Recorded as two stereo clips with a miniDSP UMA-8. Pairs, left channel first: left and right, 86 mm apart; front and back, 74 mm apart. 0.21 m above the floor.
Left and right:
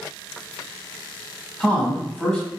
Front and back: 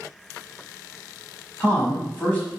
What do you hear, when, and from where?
1.6 s a man speaking: 30° left, 1.0 m